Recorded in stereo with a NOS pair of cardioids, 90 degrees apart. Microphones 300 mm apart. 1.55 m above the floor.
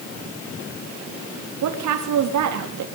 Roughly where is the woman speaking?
Right.